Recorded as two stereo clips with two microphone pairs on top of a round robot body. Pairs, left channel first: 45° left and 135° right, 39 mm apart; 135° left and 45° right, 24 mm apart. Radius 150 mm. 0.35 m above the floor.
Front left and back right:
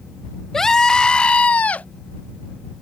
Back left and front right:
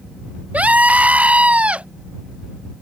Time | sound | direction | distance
0.5 | a scream | 40° right | ?